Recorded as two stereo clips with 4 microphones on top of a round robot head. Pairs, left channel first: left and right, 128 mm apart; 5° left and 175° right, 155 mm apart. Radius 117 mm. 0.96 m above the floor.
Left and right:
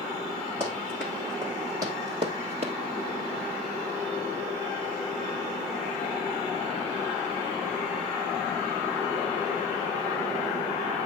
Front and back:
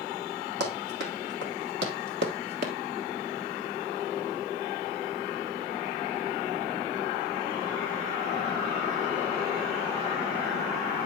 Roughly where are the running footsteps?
Behind.